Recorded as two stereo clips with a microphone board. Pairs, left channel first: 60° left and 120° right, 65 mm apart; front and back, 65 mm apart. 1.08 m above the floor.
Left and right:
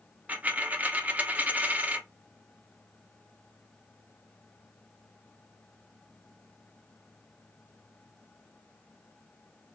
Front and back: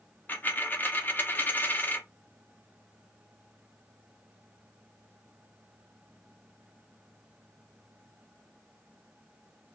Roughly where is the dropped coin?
Ahead right.